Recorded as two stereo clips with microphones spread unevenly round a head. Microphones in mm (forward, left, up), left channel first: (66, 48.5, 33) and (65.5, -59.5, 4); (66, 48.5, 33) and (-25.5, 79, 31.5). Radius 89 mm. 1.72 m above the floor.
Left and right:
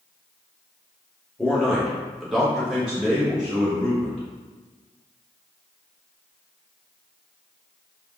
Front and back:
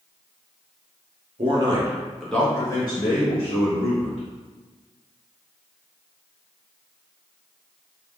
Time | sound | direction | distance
1.4 | a man speaking | 165° left | 0.7 m